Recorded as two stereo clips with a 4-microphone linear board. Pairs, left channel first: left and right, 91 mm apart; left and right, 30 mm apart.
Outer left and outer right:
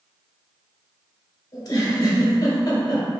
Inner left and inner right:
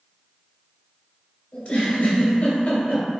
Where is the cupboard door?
No cupboard door in this recording.